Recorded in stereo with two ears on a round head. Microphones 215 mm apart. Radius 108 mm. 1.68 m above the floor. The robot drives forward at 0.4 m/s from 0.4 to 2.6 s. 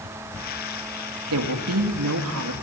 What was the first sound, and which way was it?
A woman speaking, 75° right (ahead or behind).